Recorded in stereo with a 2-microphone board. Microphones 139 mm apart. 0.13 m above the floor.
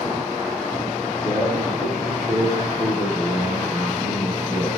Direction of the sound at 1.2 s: 5° right (ahead or behind).